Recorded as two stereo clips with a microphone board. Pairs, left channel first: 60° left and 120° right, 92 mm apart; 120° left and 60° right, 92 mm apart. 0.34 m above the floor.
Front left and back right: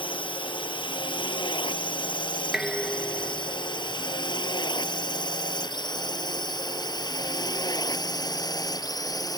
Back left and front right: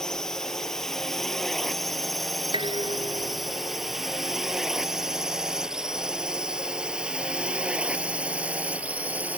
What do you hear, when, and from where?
0.0 s a drone: 35° left; by 9.4 s 15° left
2.5 s dishes clattering: 35° right